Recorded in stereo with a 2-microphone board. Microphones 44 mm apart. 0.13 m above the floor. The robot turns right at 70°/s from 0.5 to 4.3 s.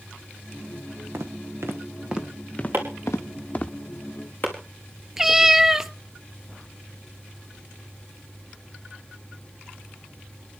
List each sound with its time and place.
1.1 s footsteps: 70° right (ahead or behind), 3 m; by 3.7 s 15° left (ahead or behind), 1.7 m
2.7 s chopping: 60° right (ahead or behind), 4.5 m; by 4.5 s 50° left (ahead or behind), 4.5 m
5.2 s a cat meowing: 10° right (ahead or behind), 0.7 m